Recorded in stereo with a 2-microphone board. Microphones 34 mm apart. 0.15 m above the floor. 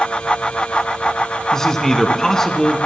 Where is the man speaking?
15° left (ahead or behind), 1.5 m.